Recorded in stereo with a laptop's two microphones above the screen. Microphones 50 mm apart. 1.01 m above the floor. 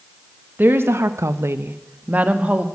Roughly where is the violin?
I don't hear a violin.